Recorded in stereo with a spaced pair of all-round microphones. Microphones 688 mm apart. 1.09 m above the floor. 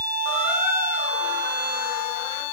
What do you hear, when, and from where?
0.2 s a squeak: 65° right (ahead or behind), 2 m